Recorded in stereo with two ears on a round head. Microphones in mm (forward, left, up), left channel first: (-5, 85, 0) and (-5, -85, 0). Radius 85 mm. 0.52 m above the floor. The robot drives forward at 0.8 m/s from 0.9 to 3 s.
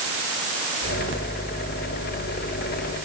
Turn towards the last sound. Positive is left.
No sound to turn to.